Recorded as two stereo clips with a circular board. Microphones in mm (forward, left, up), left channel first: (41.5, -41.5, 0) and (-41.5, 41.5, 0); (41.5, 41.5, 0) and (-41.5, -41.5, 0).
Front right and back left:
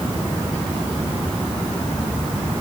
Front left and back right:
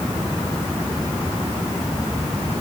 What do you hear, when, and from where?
Only background noise.